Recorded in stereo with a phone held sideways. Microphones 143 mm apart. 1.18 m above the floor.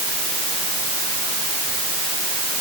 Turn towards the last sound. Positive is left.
No sound to turn to.